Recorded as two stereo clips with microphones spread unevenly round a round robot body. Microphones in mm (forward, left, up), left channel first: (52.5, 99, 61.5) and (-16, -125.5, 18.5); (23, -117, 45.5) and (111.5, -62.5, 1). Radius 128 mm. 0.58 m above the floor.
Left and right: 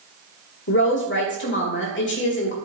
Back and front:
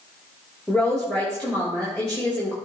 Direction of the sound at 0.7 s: 120° left.